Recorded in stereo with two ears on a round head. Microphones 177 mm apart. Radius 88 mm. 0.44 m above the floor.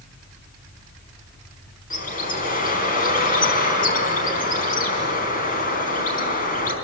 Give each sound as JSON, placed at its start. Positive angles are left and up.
{"t": 1.9, "sound": "a bird", "side_deg": 45, "distance_m": 4.5}